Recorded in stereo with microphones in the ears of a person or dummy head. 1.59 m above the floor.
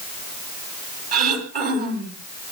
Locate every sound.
1.1 s throat clearing: 55° right (ahead or behind), 3 m